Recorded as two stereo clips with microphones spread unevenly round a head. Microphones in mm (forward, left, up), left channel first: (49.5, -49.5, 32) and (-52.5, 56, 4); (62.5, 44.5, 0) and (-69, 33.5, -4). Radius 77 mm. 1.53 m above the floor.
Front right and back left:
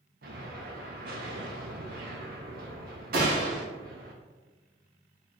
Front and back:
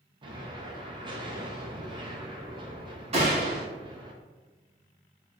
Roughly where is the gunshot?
Behind.